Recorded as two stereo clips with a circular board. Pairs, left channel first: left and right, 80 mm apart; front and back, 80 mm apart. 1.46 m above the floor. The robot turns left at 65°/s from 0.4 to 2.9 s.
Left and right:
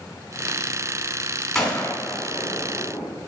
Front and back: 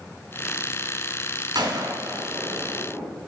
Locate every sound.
1.6 s a gunshot: 175° left, 3 m; by 3.1 s 85° left, 3 m